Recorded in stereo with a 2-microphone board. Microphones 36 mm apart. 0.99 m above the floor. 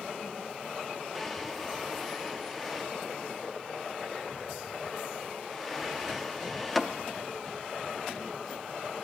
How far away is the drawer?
About 0.6 m.